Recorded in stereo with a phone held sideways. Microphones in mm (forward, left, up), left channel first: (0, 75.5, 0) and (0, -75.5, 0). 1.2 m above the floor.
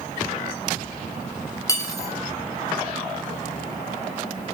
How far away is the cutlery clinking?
About 0.9 m.